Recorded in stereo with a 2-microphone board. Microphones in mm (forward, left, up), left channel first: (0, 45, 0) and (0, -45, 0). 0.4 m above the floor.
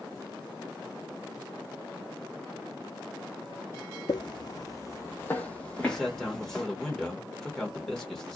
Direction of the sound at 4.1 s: 60° left (ahead or behind).